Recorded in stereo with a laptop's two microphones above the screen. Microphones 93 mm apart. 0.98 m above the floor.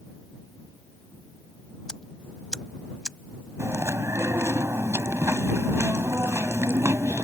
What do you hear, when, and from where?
1.9 s ticking: 10° left (ahead or behind)
3.6 s chewing: 30° right (ahead or behind)